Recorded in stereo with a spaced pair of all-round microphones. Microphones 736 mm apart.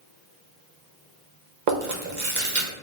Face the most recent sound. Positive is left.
turn(degrees=-70)  # may be behind; listen again after turning